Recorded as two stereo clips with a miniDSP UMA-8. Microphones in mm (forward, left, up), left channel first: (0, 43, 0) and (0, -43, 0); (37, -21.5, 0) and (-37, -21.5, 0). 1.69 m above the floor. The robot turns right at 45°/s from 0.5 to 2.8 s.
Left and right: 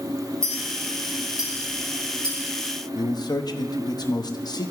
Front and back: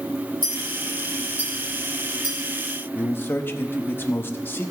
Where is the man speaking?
60° left, 0.9 m.